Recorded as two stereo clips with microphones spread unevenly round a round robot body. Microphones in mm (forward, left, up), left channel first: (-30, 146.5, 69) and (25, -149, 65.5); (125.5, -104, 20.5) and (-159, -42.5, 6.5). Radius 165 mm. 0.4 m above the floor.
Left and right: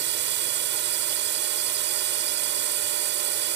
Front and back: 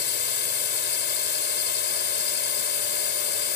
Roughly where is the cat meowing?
I don't hear a cat meowing.